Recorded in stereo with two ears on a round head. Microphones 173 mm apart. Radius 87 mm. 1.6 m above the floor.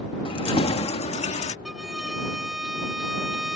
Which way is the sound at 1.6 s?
Centre (ahead or behind).